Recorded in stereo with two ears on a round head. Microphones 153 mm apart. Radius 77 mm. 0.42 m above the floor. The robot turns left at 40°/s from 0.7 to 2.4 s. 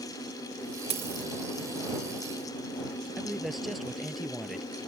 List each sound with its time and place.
0.9 s a dropped coin: 40° right (ahead or behind); by 1.3 s 25° right (ahead or behind)
3.2 s a man speaking: centre (ahead or behind)